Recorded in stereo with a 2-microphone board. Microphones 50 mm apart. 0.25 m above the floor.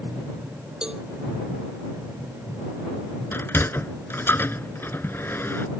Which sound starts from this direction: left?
A sliding door, at 3.3 s.